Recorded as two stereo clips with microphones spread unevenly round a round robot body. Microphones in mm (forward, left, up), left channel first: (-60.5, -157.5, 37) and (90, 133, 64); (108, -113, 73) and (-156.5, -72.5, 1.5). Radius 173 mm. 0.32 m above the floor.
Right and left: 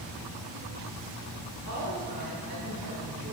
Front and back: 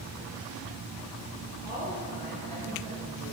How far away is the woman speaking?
About 5.5 m.